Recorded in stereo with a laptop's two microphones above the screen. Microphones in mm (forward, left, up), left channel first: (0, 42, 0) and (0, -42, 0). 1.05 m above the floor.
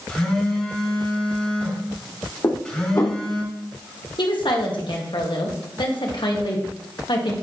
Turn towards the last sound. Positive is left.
turn(degrees=60)  # may be behind; listen again after turning